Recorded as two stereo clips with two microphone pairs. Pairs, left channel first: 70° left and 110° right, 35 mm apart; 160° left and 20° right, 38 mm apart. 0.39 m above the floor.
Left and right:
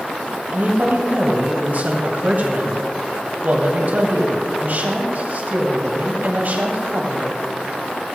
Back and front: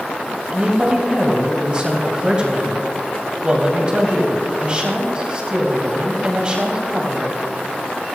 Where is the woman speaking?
85° right, 2 m.